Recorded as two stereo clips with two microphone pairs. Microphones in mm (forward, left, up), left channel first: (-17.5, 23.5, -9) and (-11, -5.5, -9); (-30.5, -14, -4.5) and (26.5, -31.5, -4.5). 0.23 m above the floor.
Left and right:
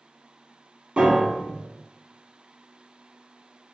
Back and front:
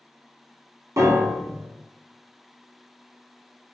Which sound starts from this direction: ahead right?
A piano, at 1.0 s.